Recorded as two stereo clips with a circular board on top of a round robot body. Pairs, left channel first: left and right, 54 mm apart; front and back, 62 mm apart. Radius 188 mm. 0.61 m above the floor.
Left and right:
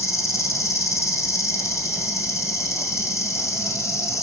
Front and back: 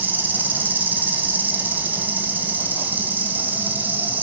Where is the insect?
120° left, 2 m.